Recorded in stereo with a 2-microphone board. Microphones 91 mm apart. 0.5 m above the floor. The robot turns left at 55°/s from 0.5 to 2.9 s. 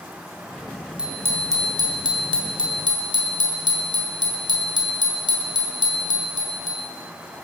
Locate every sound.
1.0 s a bicycle bell: 10° right, 2 m; by 6.8 s 115° right, 2 m